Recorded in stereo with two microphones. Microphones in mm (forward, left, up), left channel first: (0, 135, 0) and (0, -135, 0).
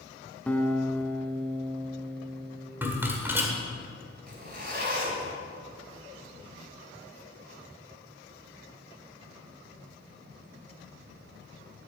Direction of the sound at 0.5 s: 5° left (ahead or behind).